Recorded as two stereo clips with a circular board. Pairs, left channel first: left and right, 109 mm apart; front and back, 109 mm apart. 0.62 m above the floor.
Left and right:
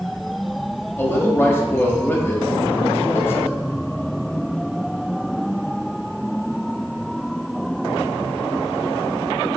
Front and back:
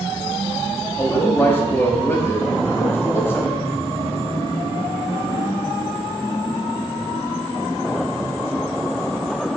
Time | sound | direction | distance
1.0 | a man speaking | 45° left | 1.3 m